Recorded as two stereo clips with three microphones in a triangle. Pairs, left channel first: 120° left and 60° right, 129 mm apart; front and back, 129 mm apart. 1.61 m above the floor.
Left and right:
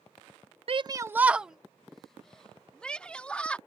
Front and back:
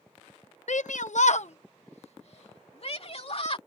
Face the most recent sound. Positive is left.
turn(degrees=40)